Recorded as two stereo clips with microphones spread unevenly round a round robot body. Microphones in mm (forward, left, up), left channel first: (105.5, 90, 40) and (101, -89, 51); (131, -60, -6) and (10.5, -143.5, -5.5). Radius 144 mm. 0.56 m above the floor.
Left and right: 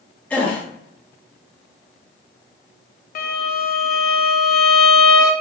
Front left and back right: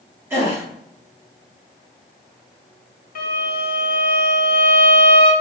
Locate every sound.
0.3 s a gasp: 155° left, 0.5 m
3.1 s a violin: 55° left, 0.5 m